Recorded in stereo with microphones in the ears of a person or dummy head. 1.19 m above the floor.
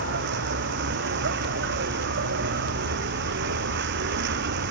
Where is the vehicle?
55° right (ahead or behind).